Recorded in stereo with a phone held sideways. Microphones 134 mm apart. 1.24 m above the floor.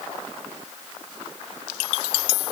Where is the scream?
No scream in this recording.